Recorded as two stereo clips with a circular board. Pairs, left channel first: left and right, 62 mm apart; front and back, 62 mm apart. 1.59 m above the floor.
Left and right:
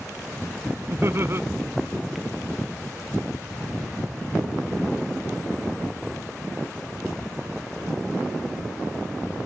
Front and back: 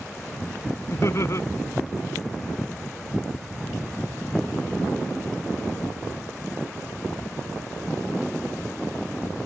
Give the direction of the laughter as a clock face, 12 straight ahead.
1 o'clock.